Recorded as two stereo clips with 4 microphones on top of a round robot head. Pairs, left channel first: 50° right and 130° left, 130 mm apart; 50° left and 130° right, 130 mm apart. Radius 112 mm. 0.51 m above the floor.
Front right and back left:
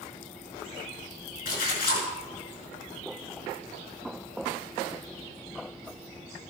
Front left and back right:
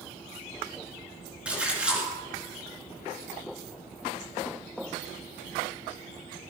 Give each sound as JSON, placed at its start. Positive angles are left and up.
{"t": 1.4, "sound": "a splash", "azimuth_deg": -45, "distance_m": 5.5}